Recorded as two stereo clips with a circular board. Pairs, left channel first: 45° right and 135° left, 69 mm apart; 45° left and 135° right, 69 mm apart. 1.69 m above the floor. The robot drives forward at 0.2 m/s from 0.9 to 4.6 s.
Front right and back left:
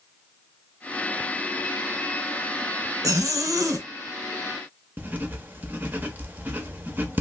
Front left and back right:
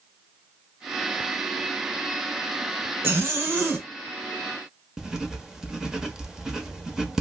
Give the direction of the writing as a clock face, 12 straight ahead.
7 o'clock.